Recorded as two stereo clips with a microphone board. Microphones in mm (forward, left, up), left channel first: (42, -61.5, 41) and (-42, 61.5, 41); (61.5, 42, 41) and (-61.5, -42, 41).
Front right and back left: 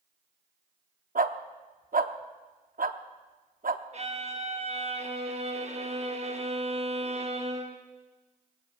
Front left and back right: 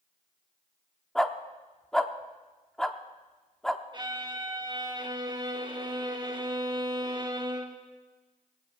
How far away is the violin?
About 1.4 m.